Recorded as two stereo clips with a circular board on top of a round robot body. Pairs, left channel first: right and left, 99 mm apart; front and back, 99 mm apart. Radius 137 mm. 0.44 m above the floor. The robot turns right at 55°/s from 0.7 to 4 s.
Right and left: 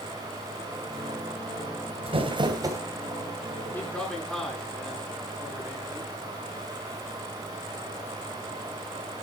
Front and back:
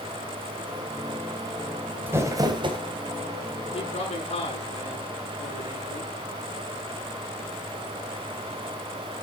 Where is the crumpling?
110° left, 2.5 m; by 2.8 s 150° left, 2.5 m.